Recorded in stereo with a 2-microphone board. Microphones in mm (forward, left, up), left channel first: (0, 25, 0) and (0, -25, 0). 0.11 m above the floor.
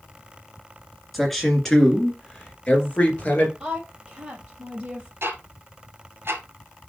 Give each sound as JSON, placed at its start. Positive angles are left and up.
{"t": 1.1, "sound": "a man speaking", "side_deg": 0, "distance_m": 1.9}
{"t": 3.6, "sound": "a woman speaking", "side_deg": -20, "distance_m": 3.0}
{"t": 5.2, "sound": "ticking", "side_deg": -55, "distance_m": 1.6}